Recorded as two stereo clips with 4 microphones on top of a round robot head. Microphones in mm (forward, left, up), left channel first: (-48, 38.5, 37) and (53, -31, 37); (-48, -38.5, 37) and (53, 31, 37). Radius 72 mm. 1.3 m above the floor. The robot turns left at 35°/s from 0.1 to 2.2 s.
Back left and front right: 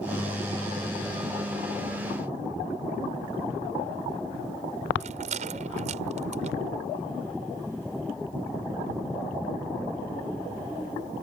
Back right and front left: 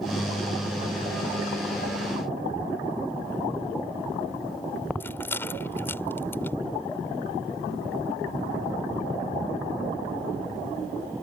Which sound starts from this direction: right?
A rattle, at 5.0 s.